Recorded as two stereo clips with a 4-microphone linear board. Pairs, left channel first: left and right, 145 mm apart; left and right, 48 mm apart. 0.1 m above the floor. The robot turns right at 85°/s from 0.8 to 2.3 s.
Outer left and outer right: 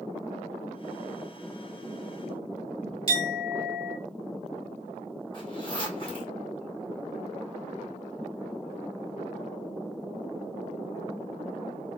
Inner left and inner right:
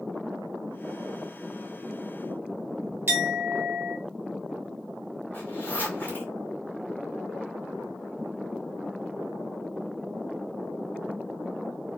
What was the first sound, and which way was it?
A clink, 45° right (ahead or behind).